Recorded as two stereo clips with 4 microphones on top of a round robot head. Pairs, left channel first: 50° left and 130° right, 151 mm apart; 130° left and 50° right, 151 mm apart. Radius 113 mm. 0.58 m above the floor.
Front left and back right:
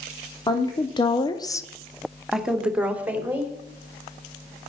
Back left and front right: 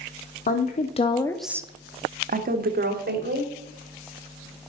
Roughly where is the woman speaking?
Left.